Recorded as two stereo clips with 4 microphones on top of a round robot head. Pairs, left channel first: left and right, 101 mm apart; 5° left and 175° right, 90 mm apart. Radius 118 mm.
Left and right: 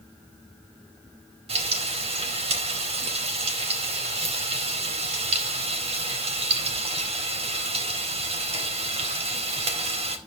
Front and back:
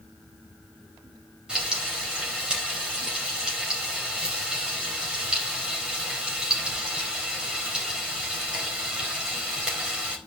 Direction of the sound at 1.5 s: 95° right.